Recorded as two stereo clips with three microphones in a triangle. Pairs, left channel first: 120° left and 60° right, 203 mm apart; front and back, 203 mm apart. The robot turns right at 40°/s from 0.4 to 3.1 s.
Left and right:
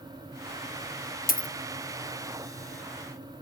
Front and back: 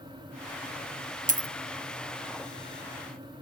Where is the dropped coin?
145° left, 0.5 m; by 1.5 s 155° left, 0.5 m.